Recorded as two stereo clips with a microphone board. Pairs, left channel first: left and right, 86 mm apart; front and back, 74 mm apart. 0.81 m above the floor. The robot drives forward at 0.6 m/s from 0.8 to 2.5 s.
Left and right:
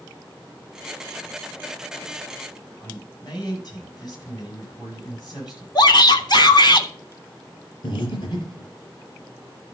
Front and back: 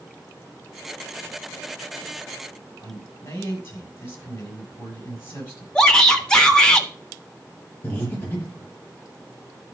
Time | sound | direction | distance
2.8 | a man speaking | 55° left | 7 m
5.8 | a shout | 75° left | 1.6 m
7.8 | breathing | 60° left | 4 m